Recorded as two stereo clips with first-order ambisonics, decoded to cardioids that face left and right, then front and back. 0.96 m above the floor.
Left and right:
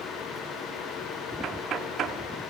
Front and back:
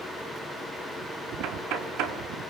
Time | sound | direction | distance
1.4 | knocking | 150° right | 1.8 m